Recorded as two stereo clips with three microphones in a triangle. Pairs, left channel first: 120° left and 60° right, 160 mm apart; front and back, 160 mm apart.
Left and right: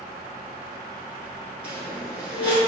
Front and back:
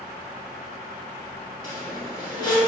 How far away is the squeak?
About 1.2 m.